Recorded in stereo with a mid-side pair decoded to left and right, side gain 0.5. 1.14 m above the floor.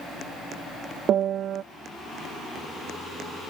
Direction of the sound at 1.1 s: 60° right.